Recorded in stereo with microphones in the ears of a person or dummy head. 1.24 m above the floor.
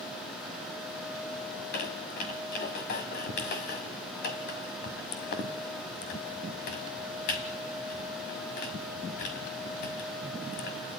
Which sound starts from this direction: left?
A squeak, at 1.5 s.